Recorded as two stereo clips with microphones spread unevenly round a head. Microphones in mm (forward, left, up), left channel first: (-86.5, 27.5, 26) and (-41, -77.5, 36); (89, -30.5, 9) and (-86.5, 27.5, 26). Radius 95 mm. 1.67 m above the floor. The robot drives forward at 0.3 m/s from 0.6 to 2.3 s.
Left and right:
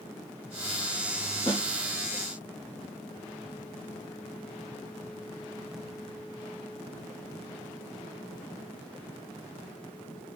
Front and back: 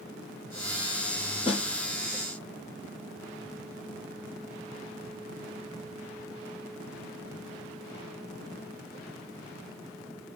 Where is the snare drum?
45° left, 0.7 m.